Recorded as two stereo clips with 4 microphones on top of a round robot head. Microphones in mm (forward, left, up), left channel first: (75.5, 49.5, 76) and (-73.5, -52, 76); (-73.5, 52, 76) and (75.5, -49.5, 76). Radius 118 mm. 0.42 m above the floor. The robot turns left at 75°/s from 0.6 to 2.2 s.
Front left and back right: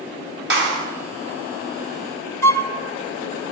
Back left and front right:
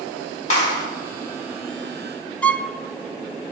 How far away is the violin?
About 0.8 m.